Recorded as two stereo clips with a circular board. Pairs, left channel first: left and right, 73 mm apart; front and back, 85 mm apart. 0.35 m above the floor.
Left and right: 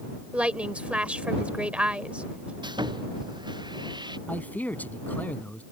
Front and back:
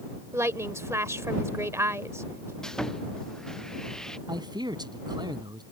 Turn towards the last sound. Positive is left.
turn(degrees=155)